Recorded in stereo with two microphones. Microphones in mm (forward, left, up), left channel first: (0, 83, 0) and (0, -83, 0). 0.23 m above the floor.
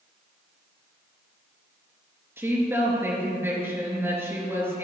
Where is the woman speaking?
15° right (ahead or behind), 3.5 m.